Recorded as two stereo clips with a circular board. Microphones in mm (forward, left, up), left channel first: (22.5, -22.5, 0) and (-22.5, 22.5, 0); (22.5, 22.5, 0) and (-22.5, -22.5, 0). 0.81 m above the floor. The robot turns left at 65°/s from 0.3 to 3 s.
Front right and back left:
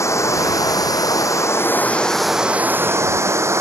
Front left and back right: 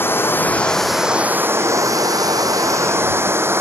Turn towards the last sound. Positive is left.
turn(degrees=175)